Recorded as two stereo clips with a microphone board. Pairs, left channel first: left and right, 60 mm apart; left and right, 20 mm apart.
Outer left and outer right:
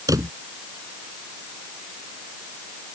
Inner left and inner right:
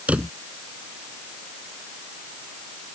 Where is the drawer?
75° right (ahead or behind).